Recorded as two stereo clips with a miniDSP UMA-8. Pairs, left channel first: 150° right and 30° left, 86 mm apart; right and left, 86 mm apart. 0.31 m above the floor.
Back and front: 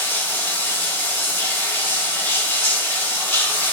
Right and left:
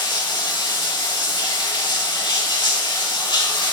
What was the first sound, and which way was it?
Running water, 90° right.